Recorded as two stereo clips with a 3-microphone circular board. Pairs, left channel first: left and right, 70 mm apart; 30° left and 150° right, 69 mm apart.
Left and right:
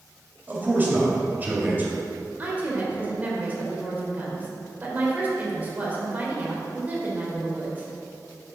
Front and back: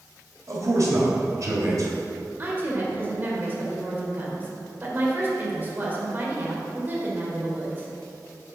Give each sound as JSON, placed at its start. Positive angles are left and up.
{"t": 0.5, "sound": "a man speaking", "azimuth_deg": -145, "distance_m": 1.9}
{"t": 2.4, "sound": "a woman speaking", "azimuth_deg": -125, "distance_m": 1.6}